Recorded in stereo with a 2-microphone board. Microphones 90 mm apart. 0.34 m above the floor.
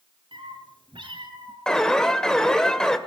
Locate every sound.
0.3 s a cat meowing: 75° right (ahead or behind), 6 m
1.7 s an alarm: 5° left (ahead or behind), 2 m